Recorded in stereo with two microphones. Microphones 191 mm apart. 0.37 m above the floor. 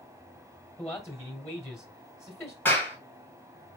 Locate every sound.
0.8 s a man speaking: 15° left (ahead or behind), 1.4 m
2.6 s a clap: 10° left (ahead or behind), 1.8 m